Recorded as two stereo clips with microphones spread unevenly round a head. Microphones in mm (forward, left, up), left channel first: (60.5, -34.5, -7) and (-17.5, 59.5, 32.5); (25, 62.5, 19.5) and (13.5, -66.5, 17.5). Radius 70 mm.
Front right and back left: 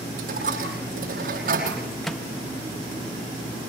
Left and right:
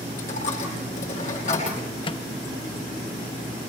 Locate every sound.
0.2 s a dropped coin: 125° left, 9 m
2.0 s a microwave: 35° left, 0.8 m